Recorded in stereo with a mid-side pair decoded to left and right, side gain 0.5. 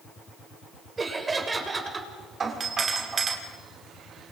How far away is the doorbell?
About 6 m.